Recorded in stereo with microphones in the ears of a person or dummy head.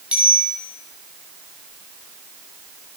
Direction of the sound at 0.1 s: 10° right (ahead or behind).